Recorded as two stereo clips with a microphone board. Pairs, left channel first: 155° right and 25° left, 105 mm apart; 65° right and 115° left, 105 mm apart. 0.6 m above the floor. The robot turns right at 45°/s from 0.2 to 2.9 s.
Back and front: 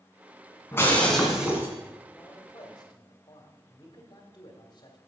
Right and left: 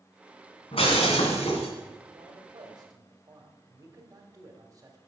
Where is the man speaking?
130° left, 1.8 m; by 5.0 s 165° left, 1.8 m.